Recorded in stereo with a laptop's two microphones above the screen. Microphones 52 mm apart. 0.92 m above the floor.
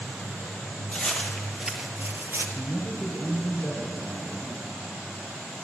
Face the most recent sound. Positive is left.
turn(degrees=35)  # may be behind; listen again after turning